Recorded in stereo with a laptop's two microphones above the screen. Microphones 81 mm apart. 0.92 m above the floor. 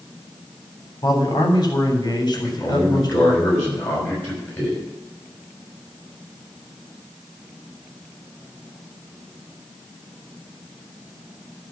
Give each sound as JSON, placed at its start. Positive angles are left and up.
{"t": 1.0, "sound": "a man speaking", "side_deg": 60, "distance_m": 3.5}
{"t": 2.3, "sound": "a man speaking", "side_deg": 30, "distance_m": 5.5}